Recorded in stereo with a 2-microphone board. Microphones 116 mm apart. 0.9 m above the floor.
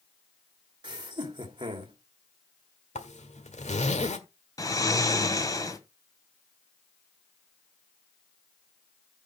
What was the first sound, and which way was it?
Laughter, 40° right (ahead or behind).